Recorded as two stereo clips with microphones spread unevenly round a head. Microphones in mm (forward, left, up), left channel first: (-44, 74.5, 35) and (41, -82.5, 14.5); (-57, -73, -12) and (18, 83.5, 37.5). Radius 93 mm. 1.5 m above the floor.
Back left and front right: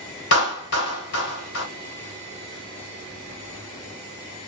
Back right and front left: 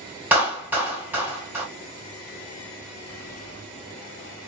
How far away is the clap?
About 1.3 m.